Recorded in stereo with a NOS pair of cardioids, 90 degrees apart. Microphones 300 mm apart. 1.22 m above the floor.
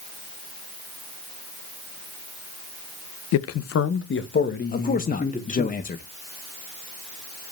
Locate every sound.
3.3 s a man speaking: 60° left, 0.8 m; by 5.7 s 25° left, 2.5 m
4.7 s a man speaking: 30° left, 0.9 m